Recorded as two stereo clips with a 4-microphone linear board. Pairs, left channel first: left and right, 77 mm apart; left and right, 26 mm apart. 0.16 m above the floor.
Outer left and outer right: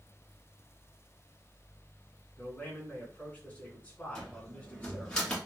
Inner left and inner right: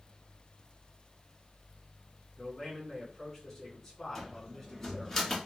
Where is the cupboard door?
10° left (ahead or behind), 1.7 m.